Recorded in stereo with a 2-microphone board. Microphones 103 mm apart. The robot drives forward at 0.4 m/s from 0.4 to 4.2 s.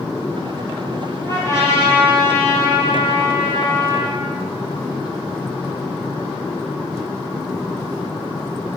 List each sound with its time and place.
1.2 s a trumpet: 30° left (ahead or behind), 3.5 m; by 4.2 s 25° left (ahead or behind), 4.5 m